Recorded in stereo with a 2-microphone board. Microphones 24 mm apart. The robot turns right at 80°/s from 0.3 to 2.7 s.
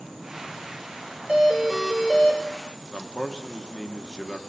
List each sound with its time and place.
1.3 s a doorbell: 45° right, 2.5 m; by 2.4 s 45° left, 2.5 m
2.9 s a man speaking: 25° left (ahead or behind), 1.6 m